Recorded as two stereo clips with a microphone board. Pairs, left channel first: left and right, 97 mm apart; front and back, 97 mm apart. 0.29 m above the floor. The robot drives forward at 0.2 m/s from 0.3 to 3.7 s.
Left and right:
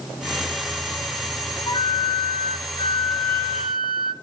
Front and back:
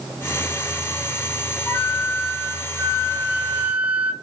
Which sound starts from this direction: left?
A flute, at 1.7 s.